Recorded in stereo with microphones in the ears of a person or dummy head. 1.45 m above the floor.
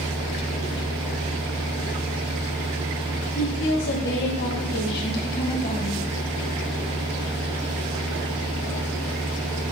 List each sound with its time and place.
3.4 s a woman speaking: 80° left, 3 m; by 6.0 s 40° left (ahead or behind), 2.5 m